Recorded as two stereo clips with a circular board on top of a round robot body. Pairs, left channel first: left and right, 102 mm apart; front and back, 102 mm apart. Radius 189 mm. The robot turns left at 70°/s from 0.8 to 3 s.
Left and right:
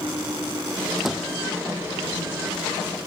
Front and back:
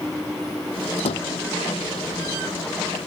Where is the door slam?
5° left; by 1.3 s 15° right.